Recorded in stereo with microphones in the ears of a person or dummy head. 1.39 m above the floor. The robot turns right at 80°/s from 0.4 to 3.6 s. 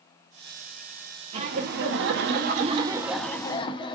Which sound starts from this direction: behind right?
Laughter, at 1.3 s.